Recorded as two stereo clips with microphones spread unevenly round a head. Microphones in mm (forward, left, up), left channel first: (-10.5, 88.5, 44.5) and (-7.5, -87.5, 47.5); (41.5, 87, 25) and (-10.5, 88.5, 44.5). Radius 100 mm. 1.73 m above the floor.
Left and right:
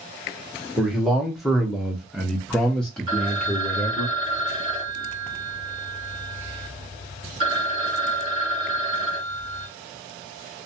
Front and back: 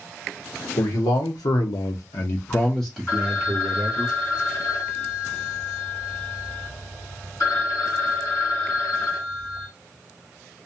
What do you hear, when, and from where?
0.8 s a man speaking: straight ahead, 1.1 m; by 4.1 s 175° left, 0.9 m
3.1 s a phone ringing: 30° right, 2 m